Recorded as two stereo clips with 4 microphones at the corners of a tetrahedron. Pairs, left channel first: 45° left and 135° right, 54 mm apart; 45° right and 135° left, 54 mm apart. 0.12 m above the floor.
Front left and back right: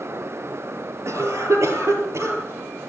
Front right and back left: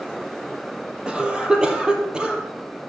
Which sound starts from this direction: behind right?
A cough, at 1.1 s.